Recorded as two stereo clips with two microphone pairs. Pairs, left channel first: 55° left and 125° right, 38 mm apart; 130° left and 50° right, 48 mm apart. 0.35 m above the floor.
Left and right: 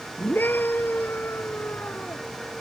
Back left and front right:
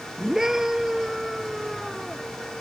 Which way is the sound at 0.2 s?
30° left.